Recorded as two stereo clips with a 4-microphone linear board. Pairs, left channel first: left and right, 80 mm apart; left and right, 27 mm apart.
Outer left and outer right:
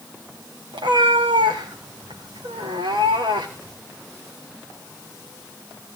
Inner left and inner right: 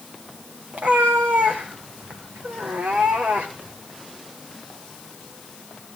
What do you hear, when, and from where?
0.7 s a cat meowing: 85° right, 4 m